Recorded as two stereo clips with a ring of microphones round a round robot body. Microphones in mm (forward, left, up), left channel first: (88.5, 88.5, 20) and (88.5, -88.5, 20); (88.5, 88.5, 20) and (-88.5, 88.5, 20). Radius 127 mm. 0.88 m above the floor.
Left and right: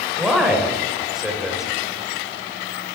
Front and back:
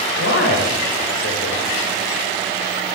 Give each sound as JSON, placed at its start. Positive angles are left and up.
{"t": 0.2, "sound": "a man speaking", "azimuth_deg": 0, "distance_m": 3.5}